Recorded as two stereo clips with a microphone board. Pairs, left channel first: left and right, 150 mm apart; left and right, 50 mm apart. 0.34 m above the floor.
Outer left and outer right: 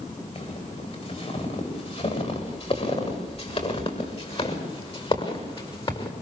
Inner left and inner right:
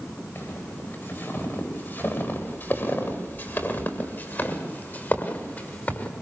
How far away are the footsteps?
About 9 m.